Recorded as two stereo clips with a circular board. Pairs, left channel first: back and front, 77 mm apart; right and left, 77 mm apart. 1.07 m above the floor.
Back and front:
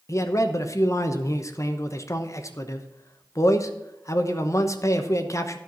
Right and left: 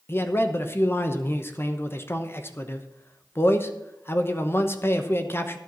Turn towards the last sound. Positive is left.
turn(degrees=-140)